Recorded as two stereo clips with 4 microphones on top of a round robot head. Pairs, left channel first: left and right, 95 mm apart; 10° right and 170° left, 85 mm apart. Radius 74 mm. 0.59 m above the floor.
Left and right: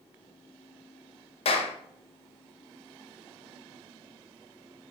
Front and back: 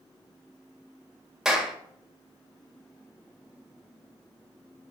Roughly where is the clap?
Left.